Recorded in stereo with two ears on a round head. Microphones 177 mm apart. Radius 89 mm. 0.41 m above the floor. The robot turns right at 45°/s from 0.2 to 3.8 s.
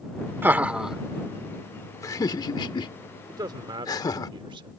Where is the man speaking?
15° right (ahead or behind); by 4.7 s 25° right (ahead or behind).